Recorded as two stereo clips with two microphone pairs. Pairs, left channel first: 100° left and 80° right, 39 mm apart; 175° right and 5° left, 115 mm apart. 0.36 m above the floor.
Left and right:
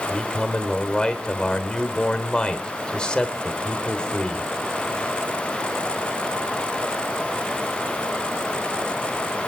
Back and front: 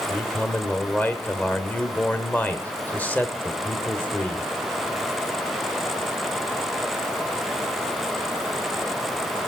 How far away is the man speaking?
About 1.1 m.